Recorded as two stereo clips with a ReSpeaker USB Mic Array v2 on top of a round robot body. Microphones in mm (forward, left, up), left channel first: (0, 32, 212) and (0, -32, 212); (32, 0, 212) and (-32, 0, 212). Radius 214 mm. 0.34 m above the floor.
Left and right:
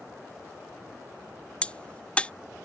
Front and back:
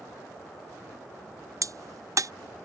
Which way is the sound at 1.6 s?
160° left.